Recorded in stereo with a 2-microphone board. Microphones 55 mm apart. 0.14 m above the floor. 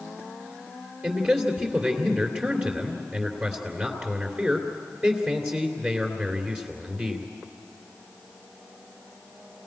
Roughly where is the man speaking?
Right.